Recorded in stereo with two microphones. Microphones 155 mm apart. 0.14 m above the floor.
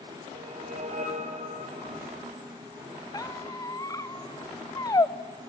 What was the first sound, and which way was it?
A whoosh, 55° right (ahead or behind).